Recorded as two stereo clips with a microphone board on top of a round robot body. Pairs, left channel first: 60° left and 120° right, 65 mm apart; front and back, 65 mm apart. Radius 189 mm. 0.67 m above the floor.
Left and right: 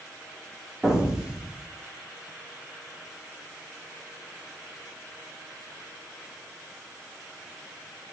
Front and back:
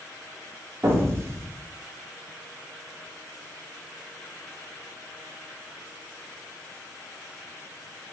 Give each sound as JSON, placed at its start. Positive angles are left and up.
{"t": 0.8, "sound": "an explosion", "azimuth_deg": 165, "distance_m": 1.0}